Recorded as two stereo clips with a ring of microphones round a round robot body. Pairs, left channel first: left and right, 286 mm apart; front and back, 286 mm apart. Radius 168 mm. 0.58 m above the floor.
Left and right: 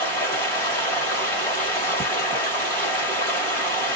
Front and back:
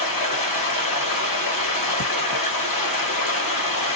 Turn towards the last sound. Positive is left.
turn(degrees=5)